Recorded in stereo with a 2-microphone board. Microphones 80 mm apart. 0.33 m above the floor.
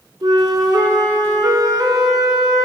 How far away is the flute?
About 0.8 m.